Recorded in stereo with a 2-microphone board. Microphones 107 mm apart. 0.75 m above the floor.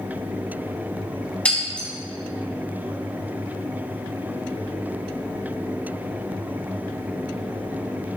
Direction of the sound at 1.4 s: 10° left (ahead or behind).